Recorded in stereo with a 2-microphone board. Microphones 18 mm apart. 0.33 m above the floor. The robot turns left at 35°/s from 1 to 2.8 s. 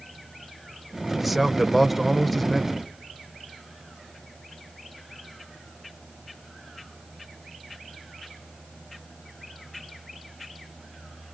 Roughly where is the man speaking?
Centre.